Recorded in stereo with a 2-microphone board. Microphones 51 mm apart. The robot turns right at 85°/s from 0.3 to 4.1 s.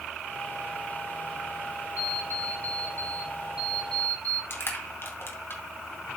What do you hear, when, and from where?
2.0 s an alarm clock: 155° right, 2 m; by 4.4 s 30° left, 2 m
4.5 s crushing: 50° left (ahead or behind), 2.5 m